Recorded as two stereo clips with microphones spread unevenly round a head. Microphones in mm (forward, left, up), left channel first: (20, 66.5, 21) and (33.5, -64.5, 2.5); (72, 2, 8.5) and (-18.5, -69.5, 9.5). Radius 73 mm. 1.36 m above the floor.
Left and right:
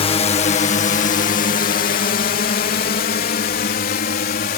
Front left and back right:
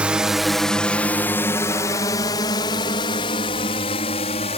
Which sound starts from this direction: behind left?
A drone, at 0.0 s.